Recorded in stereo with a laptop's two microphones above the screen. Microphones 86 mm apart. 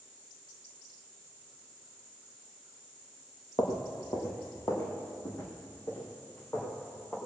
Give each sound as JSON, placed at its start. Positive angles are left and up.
{"t": 3.6, "sound": "footsteps", "side_deg": 55, "distance_m": 2.0}